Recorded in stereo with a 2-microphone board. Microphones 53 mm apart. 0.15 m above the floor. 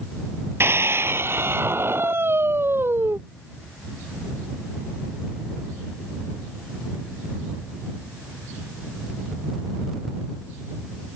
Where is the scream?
50° right (ahead or behind); by 3.2 s 45° right (ahead or behind).